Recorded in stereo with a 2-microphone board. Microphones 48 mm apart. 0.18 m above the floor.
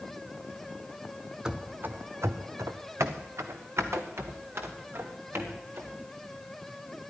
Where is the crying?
I don't hear crying.